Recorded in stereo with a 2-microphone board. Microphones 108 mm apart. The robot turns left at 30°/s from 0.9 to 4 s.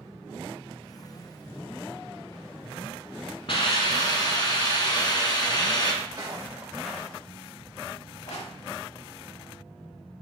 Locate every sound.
3.5 s a hiss: 55° left (ahead or behind), 1.1 m; by 5.9 s 40° left (ahead or behind), 1.1 m
6.0 s footsteps: 40° right (ahead or behind), 2 m; by 8.5 s 80° left, 2 m